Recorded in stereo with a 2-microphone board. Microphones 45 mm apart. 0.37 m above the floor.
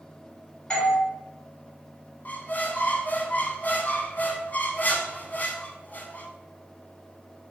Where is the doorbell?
20° left (ahead or behind), 1.4 m.